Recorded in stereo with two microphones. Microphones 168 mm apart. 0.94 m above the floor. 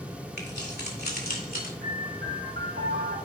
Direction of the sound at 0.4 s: 85° left.